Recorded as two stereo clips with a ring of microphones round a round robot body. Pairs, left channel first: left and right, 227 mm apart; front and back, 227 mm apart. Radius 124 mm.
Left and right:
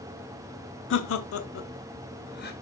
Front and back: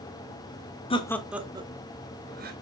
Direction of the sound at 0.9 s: 65° left.